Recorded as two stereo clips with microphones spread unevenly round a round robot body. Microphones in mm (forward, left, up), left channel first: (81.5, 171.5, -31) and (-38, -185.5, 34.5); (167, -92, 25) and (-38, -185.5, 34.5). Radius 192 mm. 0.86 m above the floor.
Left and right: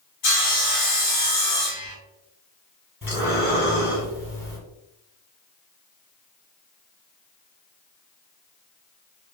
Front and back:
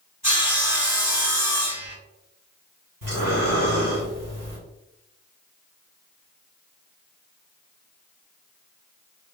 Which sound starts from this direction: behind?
Breathing, at 3.0 s.